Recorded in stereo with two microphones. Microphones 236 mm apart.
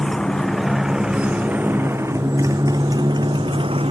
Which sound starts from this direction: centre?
A motorcycle, at 0.0 s.